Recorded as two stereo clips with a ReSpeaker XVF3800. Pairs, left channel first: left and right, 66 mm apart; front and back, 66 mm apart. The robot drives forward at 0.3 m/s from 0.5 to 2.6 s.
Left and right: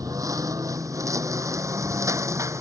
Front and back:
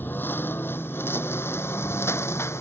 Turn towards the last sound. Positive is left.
turn(degrees=-50)